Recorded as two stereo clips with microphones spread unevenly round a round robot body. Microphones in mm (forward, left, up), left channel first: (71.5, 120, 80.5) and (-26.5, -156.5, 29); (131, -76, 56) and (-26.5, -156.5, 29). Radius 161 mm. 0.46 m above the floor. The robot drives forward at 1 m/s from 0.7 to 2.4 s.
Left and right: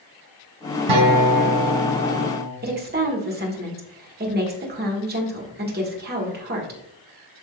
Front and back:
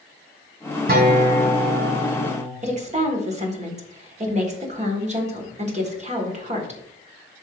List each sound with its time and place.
0.9 s a guitar: 115° right, 2.5 m; by 2.5 s 140° right, 3.5 m
2.6 s a woman speaking: 140° right, 1.6 m